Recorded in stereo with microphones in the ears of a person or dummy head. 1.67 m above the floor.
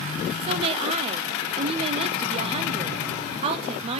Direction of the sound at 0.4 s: 30° right (ahead or behind).